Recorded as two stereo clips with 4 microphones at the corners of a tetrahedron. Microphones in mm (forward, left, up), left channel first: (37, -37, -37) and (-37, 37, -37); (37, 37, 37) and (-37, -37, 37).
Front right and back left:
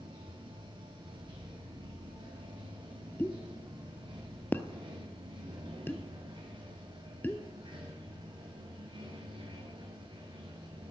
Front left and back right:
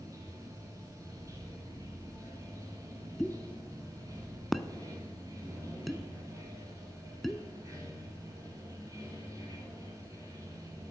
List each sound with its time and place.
0.0 s running water: 170° left, 1.9 m
3.2 s a pop: 45° right, 0.5 m